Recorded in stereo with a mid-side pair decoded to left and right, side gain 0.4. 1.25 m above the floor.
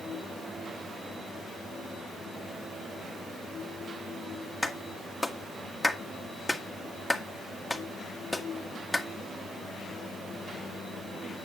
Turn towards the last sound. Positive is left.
turn(degrees=15)